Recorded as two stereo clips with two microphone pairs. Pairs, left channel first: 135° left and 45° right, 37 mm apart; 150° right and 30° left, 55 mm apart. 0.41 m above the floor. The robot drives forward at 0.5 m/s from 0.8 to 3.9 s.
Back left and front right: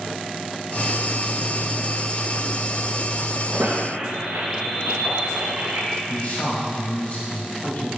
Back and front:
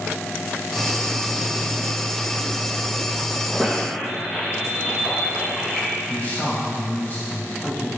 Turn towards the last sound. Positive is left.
turn(degrees=165)